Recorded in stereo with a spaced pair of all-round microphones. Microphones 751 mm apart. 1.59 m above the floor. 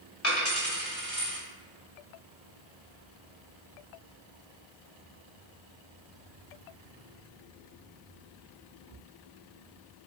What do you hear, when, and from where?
0.2 s a dropped coin: 20° left (ahead or behind), 1.5 m